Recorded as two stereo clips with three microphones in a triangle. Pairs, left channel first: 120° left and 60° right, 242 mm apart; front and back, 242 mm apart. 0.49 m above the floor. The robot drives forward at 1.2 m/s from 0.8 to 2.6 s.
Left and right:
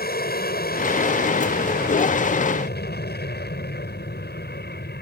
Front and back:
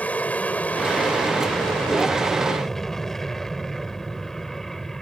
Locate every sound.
0.0 s an aircraft: 85° left; by 5.0 s 90° left